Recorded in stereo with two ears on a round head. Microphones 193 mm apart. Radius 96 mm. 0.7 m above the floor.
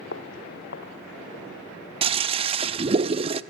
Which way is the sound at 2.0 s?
25° right (ahead or behind).